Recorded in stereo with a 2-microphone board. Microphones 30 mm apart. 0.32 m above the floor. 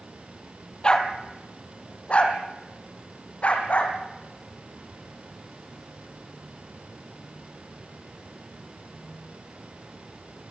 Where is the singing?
No singing in this recording.